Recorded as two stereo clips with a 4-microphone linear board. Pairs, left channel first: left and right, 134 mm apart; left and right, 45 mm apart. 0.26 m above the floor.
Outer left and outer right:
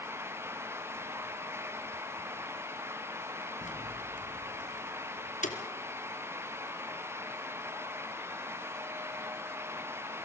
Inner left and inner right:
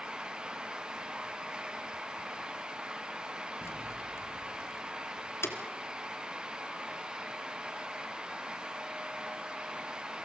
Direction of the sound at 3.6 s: 65° left (ahead or behind).